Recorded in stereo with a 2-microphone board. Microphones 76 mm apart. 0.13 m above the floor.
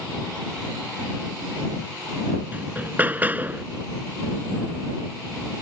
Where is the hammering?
25° right (ahead or behind).